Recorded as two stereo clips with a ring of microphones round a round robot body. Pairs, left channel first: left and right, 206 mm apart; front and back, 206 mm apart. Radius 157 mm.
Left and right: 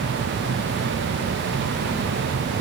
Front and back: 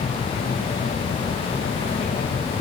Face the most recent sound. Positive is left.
No sound to turn to.